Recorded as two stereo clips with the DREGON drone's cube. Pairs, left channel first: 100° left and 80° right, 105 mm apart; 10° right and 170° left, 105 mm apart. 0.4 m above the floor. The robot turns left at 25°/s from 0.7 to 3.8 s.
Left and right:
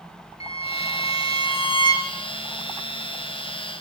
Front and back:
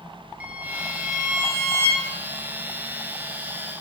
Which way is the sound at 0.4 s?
95° left.